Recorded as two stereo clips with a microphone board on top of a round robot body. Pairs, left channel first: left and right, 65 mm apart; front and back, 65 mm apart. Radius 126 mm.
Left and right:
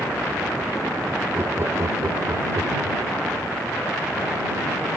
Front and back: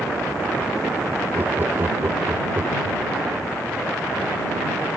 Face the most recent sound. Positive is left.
turn(degrees=-135)